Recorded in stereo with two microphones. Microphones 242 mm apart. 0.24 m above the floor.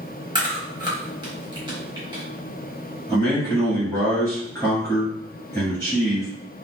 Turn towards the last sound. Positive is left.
turn(degrees=10)  # may be behind; listen again after turning